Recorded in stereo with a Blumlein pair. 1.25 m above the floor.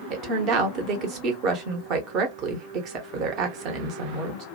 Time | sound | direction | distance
0.1 | a woman speaking | 35° right | 0.9 m